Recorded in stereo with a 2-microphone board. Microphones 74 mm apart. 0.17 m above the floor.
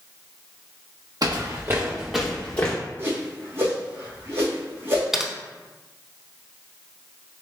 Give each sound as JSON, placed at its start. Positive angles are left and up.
{"t": 1.2, "sound": "footsteps", "side_deg": -55, "distance_m": 1.0}
{"t": 3.0, "sound": "a whoosh", "side_deg": -30, "distance_m": 1.6}
{"t": 5.1, "sound": "typing on a keyboard", "side_deg": -10, "distance_m": 0.5}